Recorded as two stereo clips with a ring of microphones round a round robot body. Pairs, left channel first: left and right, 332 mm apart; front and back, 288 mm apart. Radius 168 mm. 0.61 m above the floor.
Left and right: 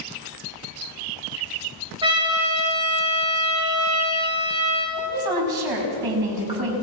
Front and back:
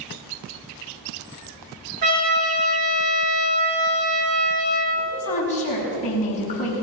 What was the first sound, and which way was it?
A trumpet, 165° right.